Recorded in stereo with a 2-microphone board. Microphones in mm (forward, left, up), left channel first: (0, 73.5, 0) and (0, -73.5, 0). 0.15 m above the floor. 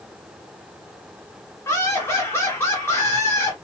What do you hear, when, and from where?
1.6 s laughter: 15° left (ahead or behind), 1.6 m